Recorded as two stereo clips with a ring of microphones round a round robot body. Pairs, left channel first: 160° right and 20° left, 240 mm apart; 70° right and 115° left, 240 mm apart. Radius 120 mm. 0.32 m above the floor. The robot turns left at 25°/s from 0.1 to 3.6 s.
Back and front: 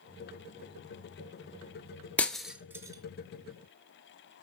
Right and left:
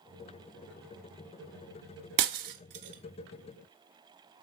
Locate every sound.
2.2 s breaking glass: 120° left, 0.9 m; by 4.4 s 85° left, 0.9 m